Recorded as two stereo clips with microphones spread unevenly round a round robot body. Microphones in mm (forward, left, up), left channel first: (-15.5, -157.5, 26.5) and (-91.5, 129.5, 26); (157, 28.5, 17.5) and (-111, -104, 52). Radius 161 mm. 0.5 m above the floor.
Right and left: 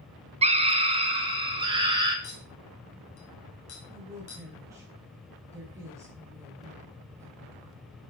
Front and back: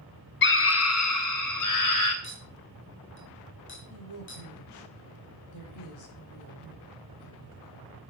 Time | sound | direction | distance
0.4 | a scream | 45° left | 0.9 m
2.2 | a clink | 25° right | 3 m
3.9 | a woman speaking | 25° left | 4 m